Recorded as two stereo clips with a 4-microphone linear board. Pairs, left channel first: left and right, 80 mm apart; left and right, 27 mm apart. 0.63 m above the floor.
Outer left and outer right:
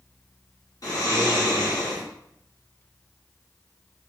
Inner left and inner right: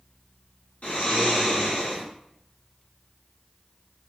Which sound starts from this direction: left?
Snoring, at 0.8 s.